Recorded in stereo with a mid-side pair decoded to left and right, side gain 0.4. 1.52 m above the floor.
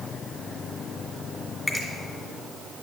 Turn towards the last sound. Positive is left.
turn(degrees=20)